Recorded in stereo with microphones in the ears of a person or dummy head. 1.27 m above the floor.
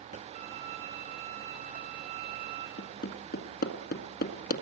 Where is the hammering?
65° left (ahead or behind), 1.8 m.